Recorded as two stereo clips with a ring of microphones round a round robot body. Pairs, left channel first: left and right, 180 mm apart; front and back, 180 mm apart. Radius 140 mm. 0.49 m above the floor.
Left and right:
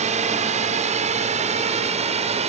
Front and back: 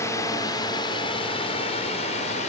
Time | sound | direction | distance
0.0 | a drone | 70° right | ?